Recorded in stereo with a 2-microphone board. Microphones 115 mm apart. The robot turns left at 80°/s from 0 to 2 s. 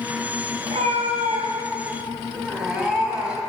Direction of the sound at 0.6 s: 60° right.